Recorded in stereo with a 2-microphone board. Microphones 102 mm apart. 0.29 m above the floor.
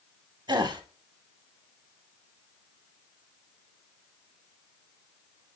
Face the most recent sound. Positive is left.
turn(degrees=-45)  # may be behind; listen again after turning